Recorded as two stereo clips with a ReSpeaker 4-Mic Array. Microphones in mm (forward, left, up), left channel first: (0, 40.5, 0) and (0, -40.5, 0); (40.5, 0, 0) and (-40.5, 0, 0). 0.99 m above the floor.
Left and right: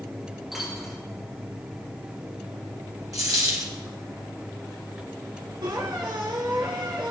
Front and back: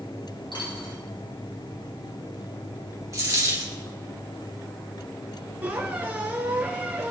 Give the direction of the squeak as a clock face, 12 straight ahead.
4 o'clock.